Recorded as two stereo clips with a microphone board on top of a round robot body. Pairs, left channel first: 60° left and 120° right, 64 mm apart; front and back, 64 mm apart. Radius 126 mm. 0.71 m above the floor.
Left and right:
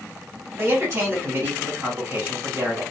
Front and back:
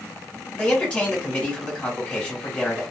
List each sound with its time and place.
0.5 s a man speaking: 70° right, 1.9 m